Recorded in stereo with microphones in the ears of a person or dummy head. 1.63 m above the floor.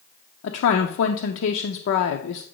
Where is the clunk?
I don't hear a clunk.